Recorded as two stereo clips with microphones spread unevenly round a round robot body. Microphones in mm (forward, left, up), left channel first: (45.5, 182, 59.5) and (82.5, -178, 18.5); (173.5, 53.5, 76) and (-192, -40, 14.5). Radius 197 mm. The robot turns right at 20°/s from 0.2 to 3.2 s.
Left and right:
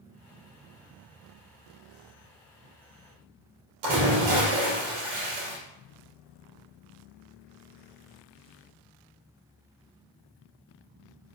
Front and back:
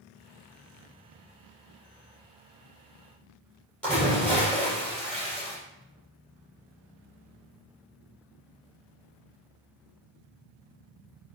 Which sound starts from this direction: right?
A splash, at 3.8 s.